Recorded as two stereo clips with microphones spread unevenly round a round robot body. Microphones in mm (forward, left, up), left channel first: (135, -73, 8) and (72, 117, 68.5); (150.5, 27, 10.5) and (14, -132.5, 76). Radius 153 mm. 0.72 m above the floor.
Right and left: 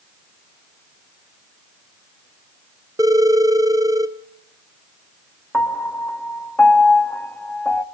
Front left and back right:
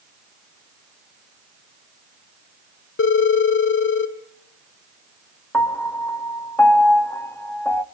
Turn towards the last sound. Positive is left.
turn(degrees=-10)